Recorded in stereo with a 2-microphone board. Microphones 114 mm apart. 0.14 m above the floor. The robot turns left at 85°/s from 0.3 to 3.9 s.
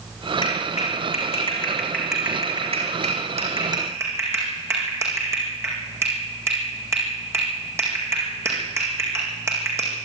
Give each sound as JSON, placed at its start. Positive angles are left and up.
{"t": 0.4, "sound": "a clap", "side_deg": 40, "distance_m": 5.5}